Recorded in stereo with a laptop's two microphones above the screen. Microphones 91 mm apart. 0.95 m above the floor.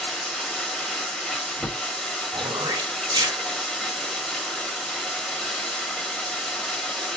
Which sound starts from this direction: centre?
Running water, at 0.0 s.